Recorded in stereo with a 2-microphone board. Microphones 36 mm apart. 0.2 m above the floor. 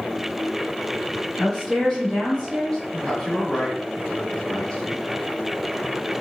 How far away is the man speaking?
About 1.0 m.